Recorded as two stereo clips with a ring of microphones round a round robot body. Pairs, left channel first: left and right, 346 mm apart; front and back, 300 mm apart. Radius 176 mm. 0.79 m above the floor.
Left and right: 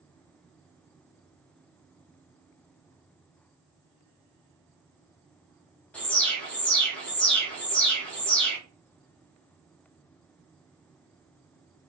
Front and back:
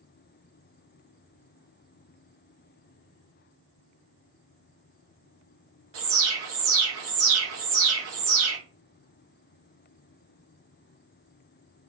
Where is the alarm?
175° left, 0.8 m.